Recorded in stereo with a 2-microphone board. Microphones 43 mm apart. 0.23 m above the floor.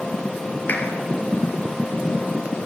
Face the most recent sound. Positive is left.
turn(degrees=40)  # may be behind; listen again after turning